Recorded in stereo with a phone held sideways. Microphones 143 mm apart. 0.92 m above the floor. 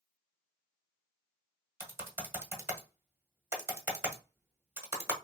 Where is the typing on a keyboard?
15° right (ahead or behind), 0.8 m.